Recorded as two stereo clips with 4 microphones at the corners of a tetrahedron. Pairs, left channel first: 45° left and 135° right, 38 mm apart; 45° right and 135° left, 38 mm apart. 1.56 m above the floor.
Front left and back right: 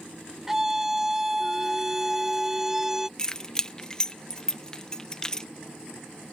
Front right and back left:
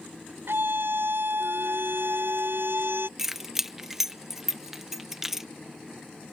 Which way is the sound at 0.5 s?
145° left.